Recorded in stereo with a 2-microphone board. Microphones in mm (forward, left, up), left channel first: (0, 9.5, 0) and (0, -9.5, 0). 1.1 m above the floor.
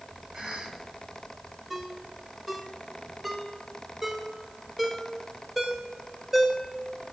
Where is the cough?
35° right (ahead or behind), 6 m.